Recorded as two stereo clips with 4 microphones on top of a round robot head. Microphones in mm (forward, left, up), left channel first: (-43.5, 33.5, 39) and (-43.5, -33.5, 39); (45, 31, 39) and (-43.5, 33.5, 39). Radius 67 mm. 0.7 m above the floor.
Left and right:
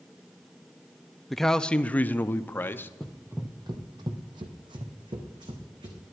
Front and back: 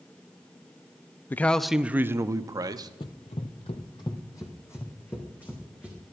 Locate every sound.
1.3 s a man speaking: straight ahead, 0.5 m; by 2.9 s 145° left, 0.9 m
3.0 s running footsteps: 5° left, 0.9 m; by 6.1 s 85° right, 2.5 m